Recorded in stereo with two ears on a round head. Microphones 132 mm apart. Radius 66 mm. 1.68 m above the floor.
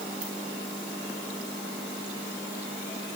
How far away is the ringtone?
About 7 m.